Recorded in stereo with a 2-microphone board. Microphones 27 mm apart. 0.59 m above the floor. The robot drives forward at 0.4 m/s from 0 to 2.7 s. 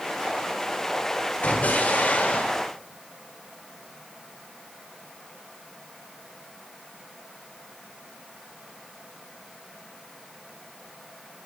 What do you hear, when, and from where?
1.4 s an explosion: 75° left (ahead or behind), 1.0 m; by 2.6 s 60° left (ahead or behind), 1.1 m